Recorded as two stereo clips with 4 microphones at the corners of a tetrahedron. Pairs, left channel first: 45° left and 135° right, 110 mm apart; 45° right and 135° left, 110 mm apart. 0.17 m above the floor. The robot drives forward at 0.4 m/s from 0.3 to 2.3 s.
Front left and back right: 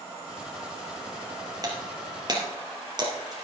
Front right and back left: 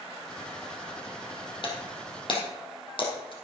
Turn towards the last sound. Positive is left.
turn(degrees=-85)